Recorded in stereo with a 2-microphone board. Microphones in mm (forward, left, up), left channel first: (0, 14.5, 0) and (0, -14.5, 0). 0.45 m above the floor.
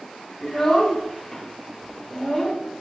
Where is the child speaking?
15° left (ahead or behind), 1.4 m.